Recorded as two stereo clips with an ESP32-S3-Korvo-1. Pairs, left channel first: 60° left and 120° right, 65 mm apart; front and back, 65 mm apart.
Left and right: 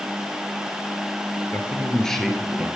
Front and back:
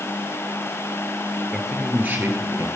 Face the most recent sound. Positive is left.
turn(degrees=165)